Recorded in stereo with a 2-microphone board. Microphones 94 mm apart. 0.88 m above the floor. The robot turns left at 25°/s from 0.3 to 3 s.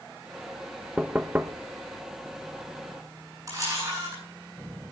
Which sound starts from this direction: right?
A camera shutter, at 3.5 s.